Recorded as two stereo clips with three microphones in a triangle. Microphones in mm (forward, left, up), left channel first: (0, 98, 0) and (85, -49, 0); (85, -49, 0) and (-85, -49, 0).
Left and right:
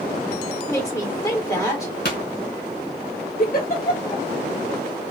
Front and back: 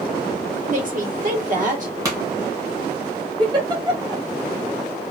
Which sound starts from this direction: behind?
A woman speaking, at 0.7 s.